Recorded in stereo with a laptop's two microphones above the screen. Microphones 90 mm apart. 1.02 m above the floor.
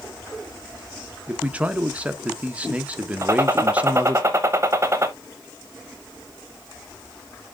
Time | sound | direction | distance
1.3 | a man speaking | 15° right (ahead or behind) | 0.7 m
3.2 | a gunshot | 30° right (ahead or behind) | 0.9 m